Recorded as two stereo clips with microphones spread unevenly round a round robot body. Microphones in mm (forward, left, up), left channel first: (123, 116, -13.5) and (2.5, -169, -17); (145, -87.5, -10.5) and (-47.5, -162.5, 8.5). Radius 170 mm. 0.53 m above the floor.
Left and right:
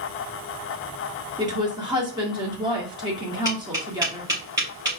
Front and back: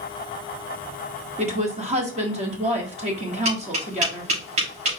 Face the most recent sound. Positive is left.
turn(degrees=165)